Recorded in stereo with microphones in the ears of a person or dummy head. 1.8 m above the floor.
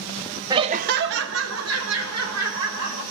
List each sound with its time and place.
0.5 s laughter: 20° right (ahead or behind), 0.5 m; by 3.0 s 80° right, 2 m